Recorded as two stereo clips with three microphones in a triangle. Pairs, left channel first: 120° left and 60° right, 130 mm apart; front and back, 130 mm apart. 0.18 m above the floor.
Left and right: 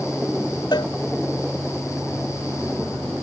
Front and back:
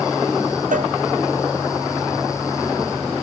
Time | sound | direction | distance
0.7 | a cowbell | straight behind | ?